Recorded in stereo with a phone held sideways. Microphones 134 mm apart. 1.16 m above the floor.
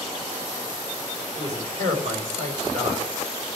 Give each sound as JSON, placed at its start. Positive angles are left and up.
{"t": 1.4, "sound": "a man speaking", "side_deg": -65, "distance_m": 5.5}